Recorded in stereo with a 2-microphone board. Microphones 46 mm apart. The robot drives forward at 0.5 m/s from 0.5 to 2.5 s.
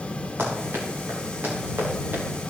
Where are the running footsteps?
65° right (ahead or behind), 5 m; by 2.2 s 45° right (ahead or behind), 5.5 m.